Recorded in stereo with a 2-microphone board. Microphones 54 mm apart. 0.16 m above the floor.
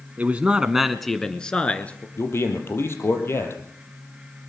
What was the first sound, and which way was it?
A man speaking, 35° right (ahead or behind).